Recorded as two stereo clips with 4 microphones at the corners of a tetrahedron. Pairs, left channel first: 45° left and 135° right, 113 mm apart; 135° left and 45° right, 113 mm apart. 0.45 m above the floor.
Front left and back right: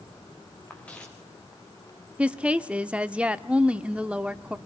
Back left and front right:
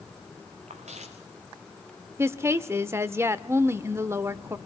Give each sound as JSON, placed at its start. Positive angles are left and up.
{"t": 0.7, "sound": "footsteps", "azimuth_deg": -35, "distance_m": 3.0}
{"t": 2.2, "sound": "a woman speaking", "azimuth_deg": -65, "distance_m": 0.8}